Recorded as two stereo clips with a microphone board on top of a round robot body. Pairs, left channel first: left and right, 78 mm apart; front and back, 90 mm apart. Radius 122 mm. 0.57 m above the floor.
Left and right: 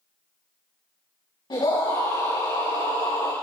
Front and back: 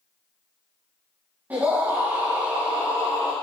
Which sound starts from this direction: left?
A scream, at 1.5 s.